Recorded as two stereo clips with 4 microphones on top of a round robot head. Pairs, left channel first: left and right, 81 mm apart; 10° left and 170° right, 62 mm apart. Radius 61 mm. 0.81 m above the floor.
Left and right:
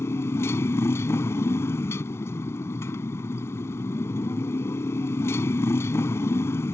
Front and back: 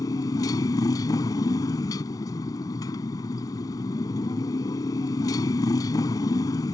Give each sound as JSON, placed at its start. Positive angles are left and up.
{"t": 0.0, "sound": "a motorcycle", "azimuth_deg": 30}